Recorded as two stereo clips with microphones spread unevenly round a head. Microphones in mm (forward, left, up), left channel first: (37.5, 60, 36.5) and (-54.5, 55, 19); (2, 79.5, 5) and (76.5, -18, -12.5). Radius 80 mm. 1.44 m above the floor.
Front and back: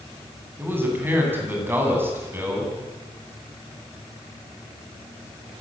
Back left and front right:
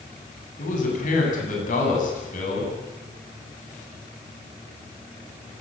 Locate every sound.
0.6 s a man speaking: 115° left, 9.5 m